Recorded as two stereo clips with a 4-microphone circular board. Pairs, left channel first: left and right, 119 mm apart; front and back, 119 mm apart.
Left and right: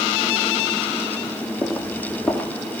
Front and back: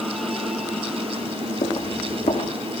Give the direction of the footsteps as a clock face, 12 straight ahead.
12 o'clock.